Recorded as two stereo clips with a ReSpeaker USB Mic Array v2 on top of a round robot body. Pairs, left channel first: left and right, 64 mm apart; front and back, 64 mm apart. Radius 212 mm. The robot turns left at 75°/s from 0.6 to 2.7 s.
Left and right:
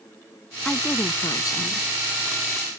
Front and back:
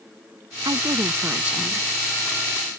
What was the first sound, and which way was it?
A woman speaking, 170° left.